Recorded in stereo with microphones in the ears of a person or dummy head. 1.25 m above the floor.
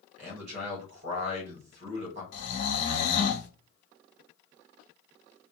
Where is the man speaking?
45° right (ahead or behind), 1.1 m.